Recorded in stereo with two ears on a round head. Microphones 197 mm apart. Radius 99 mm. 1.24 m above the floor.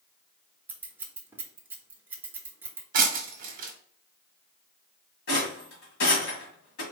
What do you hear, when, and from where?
0.7 s scissors: 10° right (ahead or behind), 0.8 m
2.9 s breaking glass: 40° right (ahead or behind), 1.1 m
5.3 s a rattle: 60° left (ahead or behind), 1.9 m